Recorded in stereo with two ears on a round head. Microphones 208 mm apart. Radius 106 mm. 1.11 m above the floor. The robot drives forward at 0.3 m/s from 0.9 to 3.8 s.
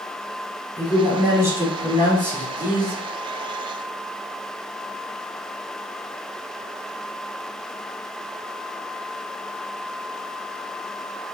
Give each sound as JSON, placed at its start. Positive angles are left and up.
{"t": 0.8, "sound": "a man speaking", "side_deg": -15, "distance_m": 3.5}